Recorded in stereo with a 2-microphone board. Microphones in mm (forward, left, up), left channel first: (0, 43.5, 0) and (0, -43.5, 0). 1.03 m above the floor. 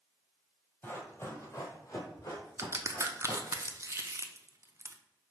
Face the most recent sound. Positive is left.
turn(degrees=-35)  # may be behind; listen again after turning